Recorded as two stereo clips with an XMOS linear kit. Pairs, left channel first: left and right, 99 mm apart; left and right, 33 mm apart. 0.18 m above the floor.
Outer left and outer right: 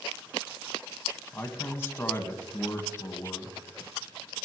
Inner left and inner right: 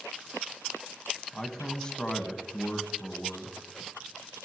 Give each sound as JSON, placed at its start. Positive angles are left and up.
{"t": 1.3, "sound": "a man speaking", "side_deg": 25, "distance_m": 1.3}